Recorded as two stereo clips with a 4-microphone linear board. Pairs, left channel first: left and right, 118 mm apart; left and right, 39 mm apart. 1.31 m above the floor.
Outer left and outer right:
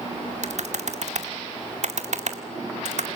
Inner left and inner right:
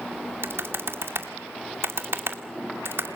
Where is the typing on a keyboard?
75° right (ahead or behind), 2 m.